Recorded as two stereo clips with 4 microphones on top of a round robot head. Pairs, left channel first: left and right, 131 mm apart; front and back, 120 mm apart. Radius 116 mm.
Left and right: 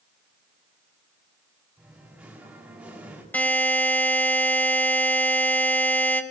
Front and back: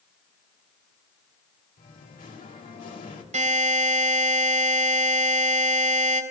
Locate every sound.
1.8 s singing: 10° right, 3 m
3.3 s a buzzer: 165° left, 4 m